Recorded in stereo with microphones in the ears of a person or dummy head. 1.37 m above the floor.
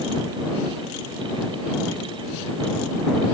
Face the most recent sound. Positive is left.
No sound to turn to.